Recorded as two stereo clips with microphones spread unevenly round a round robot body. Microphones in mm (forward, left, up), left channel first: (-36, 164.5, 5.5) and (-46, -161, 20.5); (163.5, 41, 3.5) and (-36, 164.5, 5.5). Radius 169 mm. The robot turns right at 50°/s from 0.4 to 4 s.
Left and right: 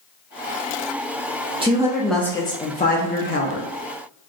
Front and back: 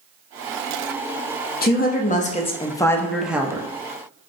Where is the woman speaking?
20° right, 0.6 m; by 3.7 s 80° left, 0.6 m.